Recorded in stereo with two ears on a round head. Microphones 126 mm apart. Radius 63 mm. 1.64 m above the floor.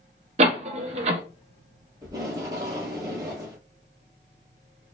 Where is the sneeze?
I don't hear a sneeze.